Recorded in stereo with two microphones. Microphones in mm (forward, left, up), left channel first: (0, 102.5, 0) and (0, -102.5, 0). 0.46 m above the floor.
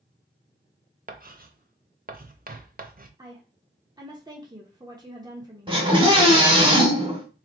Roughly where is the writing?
Right.